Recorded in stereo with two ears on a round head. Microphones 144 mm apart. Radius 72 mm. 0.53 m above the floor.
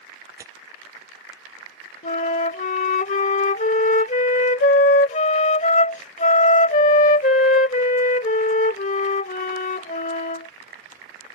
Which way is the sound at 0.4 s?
20° right (ahead or behind).